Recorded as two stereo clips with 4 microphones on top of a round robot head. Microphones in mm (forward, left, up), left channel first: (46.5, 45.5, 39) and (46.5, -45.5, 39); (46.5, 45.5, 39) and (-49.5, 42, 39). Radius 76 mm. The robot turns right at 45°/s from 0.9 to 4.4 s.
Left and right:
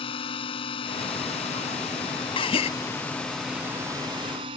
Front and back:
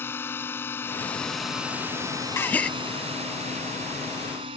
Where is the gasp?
65° left; by 2.7 s 80° left.